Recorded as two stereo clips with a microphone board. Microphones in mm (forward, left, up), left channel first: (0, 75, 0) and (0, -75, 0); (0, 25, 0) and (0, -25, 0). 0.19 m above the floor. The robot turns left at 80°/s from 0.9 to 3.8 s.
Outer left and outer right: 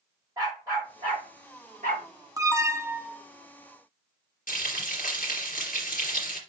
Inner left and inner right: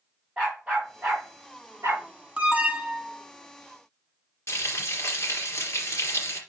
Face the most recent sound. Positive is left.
turn(degrees=70)  # may be behind; listen again after turning